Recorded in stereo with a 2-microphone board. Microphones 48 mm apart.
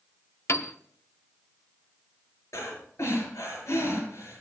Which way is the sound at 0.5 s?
65° left (ahead or behind).